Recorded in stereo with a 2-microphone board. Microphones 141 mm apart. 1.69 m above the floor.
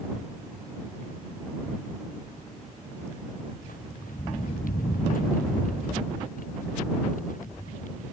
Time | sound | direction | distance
3.6 | footsteps | 75° left (ahead or behind) | ?